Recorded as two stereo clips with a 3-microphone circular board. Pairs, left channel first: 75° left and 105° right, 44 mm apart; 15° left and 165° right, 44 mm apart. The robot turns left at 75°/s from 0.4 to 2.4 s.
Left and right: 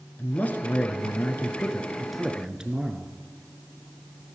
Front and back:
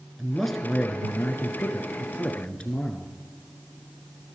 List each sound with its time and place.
0.2 s a man speaking: 110° left, 1.6 m; by 3.1 s 40° right, 1.6 m